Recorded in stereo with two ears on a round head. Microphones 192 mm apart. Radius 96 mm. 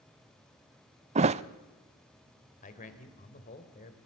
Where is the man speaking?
40° left (ahead or behind), 3 m.